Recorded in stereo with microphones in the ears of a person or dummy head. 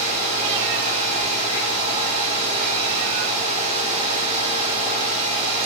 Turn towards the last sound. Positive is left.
turn(degrees=-35)  # may be behind; listen again after turning